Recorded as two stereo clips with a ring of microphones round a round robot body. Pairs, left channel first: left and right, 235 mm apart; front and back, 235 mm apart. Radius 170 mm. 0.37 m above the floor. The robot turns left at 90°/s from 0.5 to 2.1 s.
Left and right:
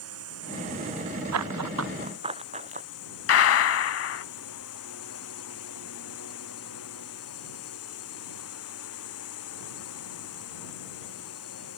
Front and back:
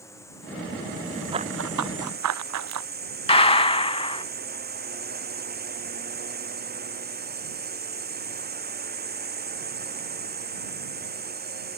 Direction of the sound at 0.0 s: 80° right.